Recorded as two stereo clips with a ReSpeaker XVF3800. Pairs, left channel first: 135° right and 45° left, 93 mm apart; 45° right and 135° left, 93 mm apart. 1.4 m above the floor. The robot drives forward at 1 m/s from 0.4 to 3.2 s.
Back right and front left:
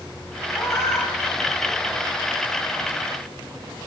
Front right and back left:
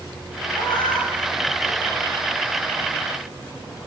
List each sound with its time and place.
0.5 s a cat meowing: 75° right, 10 m; by 2.1 s 85° right, 9.5 m